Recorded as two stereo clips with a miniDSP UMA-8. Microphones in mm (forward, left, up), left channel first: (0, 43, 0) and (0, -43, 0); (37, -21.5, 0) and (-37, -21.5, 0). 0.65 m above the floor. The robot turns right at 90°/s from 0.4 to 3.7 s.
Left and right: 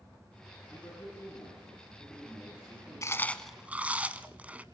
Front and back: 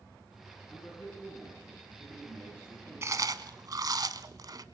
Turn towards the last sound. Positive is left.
turn(degrees=-160)